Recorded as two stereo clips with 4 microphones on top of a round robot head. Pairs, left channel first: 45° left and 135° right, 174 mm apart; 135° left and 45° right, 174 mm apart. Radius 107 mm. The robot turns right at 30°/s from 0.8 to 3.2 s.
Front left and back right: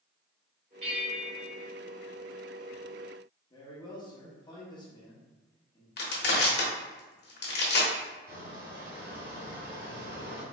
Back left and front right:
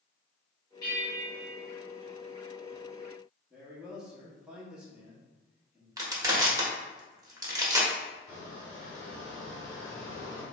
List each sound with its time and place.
0.8 s a bell: 165° right, 1.8 m; by 1.6 s 140° right, 1.8 m
3.5 s a man speaking: 35° left, 1.4 m
6.0 s crushing: 25° left, 1.2 m
8.3 s a squeak: 155° right, 1.8 m